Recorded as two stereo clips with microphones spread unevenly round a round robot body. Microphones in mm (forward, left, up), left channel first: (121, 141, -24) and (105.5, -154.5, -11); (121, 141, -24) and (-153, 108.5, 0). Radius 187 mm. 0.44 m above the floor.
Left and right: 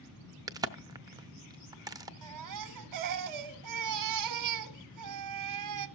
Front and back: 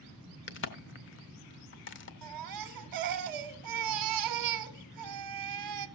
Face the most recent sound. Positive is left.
turn(degrees=-140)